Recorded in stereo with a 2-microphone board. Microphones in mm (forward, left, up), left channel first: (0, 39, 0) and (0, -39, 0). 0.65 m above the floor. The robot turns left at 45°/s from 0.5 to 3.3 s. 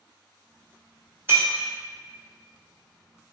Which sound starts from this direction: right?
Breaking glass, at 1.3 s.